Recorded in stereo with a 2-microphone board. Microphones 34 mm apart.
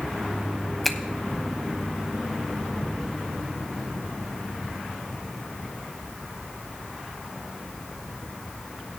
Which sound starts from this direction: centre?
A finger snap, at 0.8 s.